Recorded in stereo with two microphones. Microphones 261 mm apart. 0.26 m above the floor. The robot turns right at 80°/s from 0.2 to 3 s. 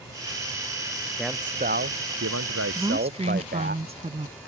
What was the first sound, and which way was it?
A man speaking, 175° left.